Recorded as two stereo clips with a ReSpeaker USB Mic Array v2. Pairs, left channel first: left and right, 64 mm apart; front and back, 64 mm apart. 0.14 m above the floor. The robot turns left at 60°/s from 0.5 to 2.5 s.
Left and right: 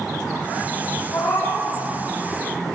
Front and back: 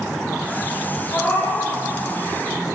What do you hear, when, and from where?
1.1 s a cat meowing: 60° left, 2.5 m; by 1.7 s 20° left, 2.5 m